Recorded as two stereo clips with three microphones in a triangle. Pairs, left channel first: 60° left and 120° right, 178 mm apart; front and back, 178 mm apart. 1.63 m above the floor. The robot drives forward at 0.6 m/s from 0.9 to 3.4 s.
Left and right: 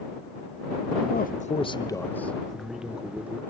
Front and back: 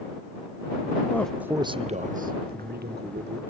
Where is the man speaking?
75° left, 0.5 m; by 3.4 s 160° left, 1.4 m.